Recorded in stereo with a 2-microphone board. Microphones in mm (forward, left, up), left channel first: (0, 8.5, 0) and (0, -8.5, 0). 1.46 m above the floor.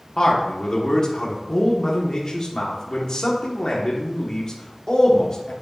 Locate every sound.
0.2 s a man speaking: 40° left (ahead or behind), 1.2 m